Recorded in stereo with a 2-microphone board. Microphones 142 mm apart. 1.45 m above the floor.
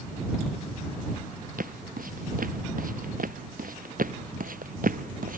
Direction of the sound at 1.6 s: 75° right (ahead or behind).